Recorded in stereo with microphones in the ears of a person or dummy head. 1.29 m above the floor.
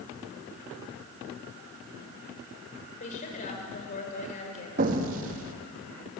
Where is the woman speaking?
40° left (ahead or behind), 6.5 m.